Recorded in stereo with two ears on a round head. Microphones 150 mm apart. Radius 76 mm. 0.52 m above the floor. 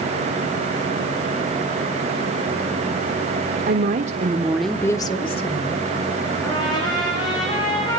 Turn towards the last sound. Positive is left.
turn(degrees=25)  # may be behind; listen again after turning